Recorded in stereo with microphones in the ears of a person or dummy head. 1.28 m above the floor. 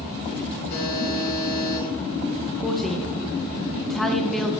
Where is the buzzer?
50° left (ahead or behind), 4 m.